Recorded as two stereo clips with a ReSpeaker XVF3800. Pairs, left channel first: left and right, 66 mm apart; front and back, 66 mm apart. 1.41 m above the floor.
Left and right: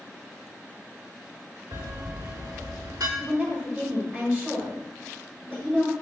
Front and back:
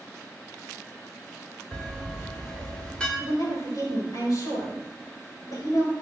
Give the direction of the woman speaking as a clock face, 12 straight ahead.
1 o'clock.